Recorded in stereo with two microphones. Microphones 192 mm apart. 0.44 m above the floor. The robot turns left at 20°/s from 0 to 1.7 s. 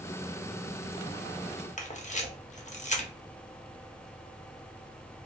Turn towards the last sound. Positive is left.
turn(degrees=40)  # may be behind; listen again after turning